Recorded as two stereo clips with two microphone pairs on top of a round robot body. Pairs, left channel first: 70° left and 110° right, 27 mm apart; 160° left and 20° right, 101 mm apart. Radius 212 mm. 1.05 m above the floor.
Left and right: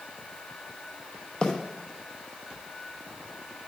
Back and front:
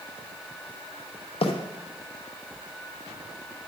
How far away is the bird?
About 0.9 m.